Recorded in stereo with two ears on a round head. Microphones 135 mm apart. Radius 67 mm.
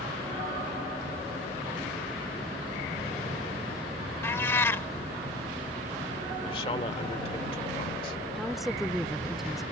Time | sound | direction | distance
4.2 | a cat meowing | 15° left (ahead or behind) | ?
6.4 | a man speaking | 35° left (ahead or behind) | ?
8.3 | a woman speaking | centre (ahead or behind) | ?